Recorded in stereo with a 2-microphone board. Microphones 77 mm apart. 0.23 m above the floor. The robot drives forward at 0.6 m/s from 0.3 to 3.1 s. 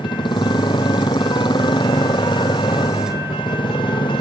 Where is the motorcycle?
70° left (ahead or behind); by 4.2 s 75° left (ahead or behind).